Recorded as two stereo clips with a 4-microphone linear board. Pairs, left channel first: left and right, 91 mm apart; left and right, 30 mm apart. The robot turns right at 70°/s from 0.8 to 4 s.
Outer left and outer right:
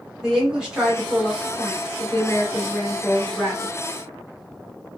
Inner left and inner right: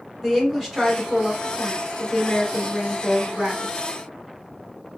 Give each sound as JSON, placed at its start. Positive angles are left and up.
{"t": 0.2, "sound": "a woman speaking", "azimuth_deg": -15, "distance_m": 1.4}